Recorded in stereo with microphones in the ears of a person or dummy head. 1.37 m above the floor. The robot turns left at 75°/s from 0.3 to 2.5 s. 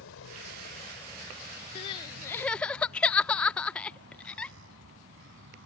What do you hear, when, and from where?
0.0 s a vehicle: 80° left; by 5.7 s 70° right (ahead or behind)
1.8 s crying: 30° left (ahead or behind); by 4.5 s 5° left (ahead or behind)